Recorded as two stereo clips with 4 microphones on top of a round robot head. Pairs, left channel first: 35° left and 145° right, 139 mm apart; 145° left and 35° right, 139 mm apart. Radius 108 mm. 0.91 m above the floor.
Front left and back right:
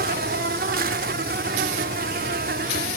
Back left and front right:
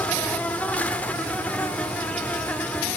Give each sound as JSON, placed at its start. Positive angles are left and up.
{"t": 0.0, "sound": "an insect", "azimuth_deg": -135, "distance_m": 0.7}